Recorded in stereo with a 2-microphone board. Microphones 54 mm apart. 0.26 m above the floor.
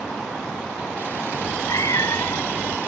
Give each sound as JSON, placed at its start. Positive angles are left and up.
{"t": 1.3, "sound": "a cat meowing", "side_deg": 85}